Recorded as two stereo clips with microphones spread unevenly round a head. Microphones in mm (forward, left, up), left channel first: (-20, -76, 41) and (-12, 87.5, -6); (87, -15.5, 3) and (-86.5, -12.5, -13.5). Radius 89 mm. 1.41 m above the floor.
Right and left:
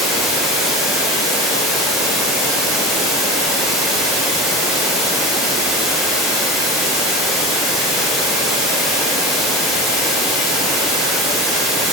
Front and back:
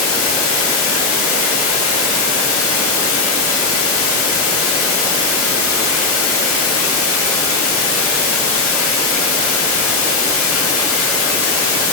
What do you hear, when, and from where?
0.0 s running water: straight ahead, 0.9 m